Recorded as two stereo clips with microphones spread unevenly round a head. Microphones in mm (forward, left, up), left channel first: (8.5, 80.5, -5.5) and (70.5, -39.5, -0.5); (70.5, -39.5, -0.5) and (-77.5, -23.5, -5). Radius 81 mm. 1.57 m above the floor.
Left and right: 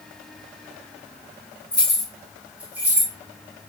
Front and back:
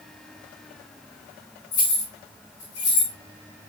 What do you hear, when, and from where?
1.7 s keys jangling: 35° left, 2.5 m; by 3.1 s 10° left, 3.5 m